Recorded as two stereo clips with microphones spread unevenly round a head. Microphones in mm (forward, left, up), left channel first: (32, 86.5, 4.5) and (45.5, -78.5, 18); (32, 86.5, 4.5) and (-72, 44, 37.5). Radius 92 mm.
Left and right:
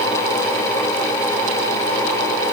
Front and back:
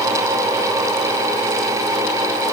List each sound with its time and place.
Only background noise.